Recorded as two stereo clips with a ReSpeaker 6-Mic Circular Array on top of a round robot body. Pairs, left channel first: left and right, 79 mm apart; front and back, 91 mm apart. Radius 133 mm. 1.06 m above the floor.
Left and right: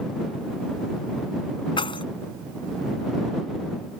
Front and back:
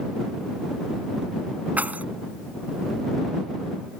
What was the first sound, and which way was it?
Keys jangling, 105° left.